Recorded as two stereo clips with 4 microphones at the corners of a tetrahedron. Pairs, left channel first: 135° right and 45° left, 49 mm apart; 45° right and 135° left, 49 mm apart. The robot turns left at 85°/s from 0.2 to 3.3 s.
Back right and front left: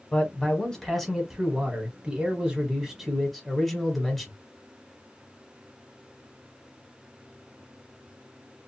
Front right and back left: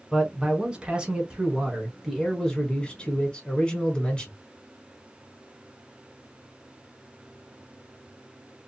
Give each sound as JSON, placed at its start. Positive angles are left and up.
{"t": 0.1, "sound": "a man speaking", "azimuth_deg": -150, "distance_m": 1.1}